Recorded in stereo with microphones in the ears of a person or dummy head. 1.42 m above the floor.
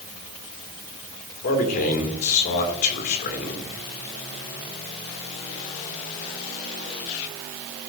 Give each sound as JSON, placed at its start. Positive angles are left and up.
{"t": 1.4, "sound": "a man speaking", "side_deg": 40, "distance_m": 2.5}